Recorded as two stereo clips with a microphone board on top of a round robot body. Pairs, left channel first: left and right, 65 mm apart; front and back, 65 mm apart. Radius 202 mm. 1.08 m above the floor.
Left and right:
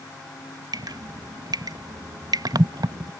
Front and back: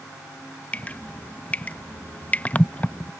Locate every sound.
0.7 s dripping: 70° right